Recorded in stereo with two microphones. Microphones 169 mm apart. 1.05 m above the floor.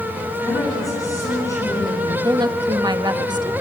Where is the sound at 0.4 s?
20° left (ahead or behind), 9.5 m.